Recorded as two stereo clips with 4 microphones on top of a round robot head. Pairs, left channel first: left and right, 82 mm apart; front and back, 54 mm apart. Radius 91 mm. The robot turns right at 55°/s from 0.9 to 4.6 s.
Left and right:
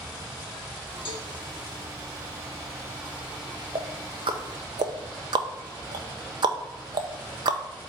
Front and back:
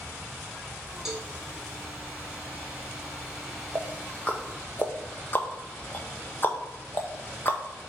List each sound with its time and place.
1.1 s a cowbell: 100° left, 1.9 m; by 1.3 s 110° left, 1.9 m
3.8 s ticking: 110° right, 0.7 m; by 7.6 s 60° right, 0.7 m